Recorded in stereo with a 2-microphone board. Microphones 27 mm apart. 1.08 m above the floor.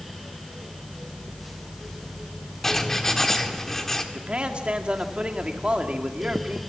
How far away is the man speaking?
About 2.0 m.